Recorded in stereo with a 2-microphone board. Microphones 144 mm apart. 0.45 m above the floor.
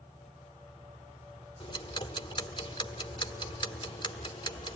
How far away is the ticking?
About 2 m.